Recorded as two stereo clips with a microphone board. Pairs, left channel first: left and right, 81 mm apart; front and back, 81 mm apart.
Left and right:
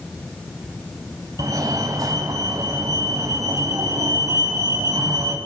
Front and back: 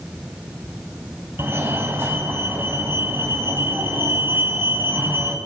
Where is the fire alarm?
125° right, 3.5 m.